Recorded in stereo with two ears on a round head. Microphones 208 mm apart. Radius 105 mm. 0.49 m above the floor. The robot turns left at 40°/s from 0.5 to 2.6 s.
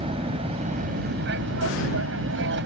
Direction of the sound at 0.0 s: 30° right.